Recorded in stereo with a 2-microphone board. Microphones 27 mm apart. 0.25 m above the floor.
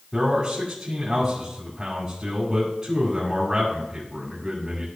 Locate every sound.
0.1 s a man speaking: 25° right (ahead or behind), 2 m